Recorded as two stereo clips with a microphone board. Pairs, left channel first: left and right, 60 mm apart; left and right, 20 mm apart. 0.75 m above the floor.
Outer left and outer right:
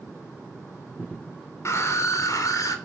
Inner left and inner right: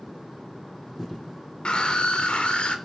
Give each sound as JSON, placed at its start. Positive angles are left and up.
{"t": 1.6, "sound": "a scream", "side_deg": 55, "distance_m": 3.5}